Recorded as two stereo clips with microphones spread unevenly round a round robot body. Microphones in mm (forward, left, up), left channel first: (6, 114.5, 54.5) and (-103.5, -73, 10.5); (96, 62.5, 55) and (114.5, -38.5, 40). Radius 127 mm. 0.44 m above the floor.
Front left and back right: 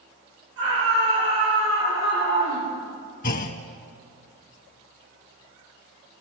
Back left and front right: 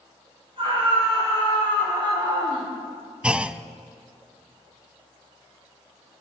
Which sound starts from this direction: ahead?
A clunk, at 3.2 s.